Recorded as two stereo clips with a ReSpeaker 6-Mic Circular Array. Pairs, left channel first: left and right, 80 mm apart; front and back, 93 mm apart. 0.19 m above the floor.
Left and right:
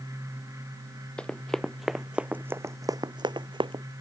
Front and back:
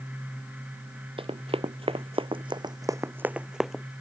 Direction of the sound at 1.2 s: 170° left.